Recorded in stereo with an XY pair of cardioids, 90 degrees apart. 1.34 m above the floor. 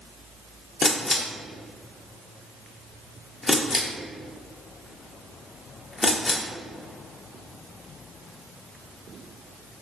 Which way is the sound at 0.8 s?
30° left.